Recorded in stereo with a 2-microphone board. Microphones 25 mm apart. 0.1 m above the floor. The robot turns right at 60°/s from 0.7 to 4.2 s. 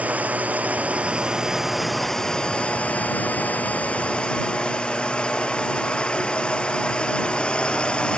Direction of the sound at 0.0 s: 70° right.